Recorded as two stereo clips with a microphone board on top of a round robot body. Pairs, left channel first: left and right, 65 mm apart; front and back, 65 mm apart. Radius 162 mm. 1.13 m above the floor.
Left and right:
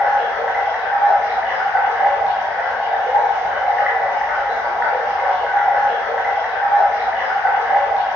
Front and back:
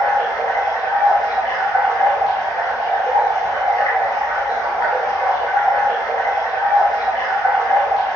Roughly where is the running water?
Ahead.